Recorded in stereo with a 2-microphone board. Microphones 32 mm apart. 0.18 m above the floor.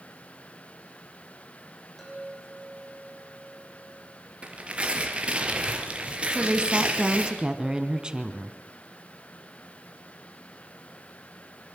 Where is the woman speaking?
25° right (ahead or behind), 2 m.